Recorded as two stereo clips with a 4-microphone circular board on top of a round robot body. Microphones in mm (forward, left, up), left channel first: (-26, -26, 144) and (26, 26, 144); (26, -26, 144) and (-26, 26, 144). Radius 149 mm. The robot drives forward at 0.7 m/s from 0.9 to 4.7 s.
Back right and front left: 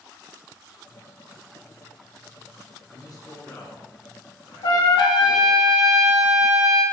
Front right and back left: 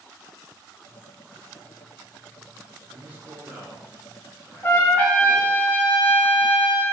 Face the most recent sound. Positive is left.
turn(degrees=-115)